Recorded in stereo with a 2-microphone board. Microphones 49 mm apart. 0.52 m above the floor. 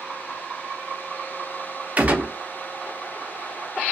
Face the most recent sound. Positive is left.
turn(degrees=-35)  # may be behind; listen again after turning